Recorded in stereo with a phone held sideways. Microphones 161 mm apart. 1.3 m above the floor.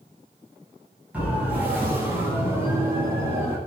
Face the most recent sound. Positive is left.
turn(degrees=-15)  # may be behind; listen again after turning